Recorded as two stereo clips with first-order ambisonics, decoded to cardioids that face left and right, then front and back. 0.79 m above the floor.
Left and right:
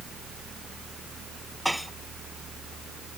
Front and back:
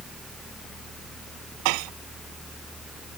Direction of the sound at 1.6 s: Straight behind.